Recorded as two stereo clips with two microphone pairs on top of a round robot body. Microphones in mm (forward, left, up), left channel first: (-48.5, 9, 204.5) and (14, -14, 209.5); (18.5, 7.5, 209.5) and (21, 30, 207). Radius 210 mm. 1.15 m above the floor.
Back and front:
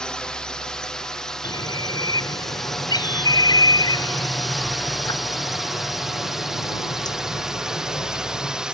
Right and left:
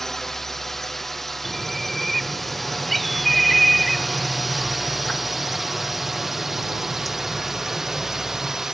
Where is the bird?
170° left.